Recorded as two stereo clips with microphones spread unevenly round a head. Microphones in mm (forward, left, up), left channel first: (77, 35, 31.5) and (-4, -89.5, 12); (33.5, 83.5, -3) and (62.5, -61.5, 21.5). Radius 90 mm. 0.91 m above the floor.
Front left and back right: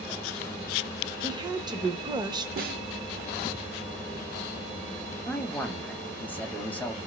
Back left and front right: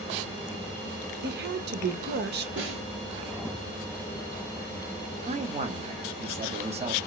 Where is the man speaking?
25° right, 0.8 m.